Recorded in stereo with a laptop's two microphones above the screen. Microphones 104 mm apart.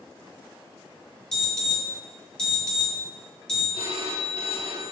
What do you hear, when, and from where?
1.3 s an alarm: 5° left (ahead or behind), 4.5 m
3.7 s a phone ringing: 75° right (ahead or behind), 1.4 m